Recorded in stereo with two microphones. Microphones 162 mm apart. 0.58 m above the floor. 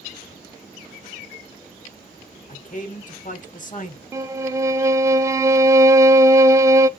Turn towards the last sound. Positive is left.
turn(degrees=-20)  # may be behind; listen again after turning